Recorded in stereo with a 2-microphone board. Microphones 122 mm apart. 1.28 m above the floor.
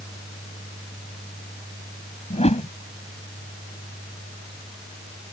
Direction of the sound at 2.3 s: 60° left (ahead or behind).